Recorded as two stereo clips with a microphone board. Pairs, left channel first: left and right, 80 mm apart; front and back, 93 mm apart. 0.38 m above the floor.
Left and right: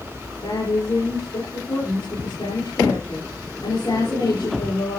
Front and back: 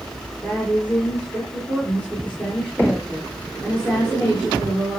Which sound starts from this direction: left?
A woman speaking, at 0.4 s.